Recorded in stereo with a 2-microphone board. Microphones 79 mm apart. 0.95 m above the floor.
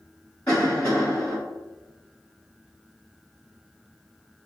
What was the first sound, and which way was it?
A cough, 15° left (ahead or behind).